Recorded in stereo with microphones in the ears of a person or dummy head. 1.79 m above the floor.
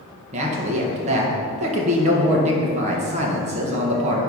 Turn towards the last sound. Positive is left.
turn(degrees=-35)  # may be behind; listen again after turning